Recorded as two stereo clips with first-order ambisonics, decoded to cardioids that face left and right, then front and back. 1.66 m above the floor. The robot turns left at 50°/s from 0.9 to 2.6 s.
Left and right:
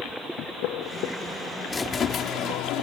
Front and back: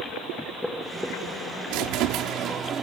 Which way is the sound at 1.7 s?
165° left.